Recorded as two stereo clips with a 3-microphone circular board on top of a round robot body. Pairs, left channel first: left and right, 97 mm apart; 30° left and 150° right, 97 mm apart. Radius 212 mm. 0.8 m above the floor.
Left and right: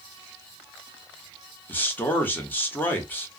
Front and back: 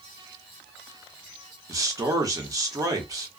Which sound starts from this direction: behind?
A man speaking, at 1.7 s.